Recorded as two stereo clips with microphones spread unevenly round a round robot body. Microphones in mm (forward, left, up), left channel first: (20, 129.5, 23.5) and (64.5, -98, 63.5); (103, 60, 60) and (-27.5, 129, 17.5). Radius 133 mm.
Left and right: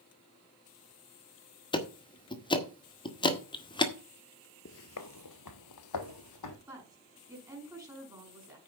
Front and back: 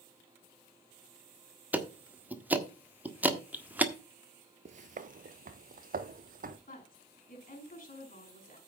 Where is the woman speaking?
Straight ahead, 6 m.